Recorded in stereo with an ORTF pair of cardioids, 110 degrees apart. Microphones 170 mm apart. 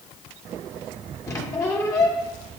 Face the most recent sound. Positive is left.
turn(degrees=20)